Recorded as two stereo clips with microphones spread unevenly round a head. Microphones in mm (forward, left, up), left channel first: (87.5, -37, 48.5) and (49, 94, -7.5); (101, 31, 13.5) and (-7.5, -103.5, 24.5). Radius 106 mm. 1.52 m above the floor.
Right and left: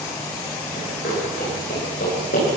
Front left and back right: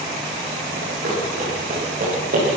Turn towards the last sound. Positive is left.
turn(degrees=-100)